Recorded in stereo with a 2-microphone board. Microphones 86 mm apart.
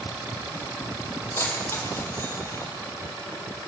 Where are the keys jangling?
25° left (ahead or behind), 5.5 m; by 2.7 s 35° left (ahead or behind), 4.5 m.